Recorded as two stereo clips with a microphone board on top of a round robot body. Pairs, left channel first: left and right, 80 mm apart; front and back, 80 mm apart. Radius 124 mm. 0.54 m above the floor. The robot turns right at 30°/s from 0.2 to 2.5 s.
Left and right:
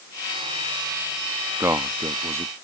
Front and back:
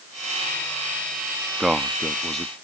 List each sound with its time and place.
1.6 s a man speaking: 105° right; by 2.5 s 80° right